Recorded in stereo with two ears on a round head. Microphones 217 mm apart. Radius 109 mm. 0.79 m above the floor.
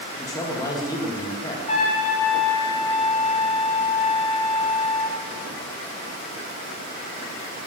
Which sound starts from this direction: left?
A trumpet, at 1.7 s.